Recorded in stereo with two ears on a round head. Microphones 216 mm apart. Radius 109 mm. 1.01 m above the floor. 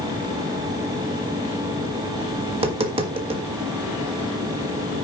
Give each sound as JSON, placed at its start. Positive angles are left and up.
{"t": 2.5, "sound": "tapping", "side_deg": -25, "distance_m": 1.5}